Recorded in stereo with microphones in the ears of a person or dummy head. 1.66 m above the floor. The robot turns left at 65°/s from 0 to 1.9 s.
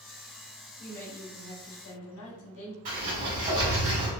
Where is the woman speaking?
Straight behind, 1.4 m; by 2.8 s 105° left, 1.4 m.